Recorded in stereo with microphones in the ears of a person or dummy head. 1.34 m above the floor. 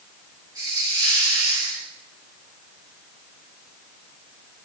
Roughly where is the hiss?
Centre.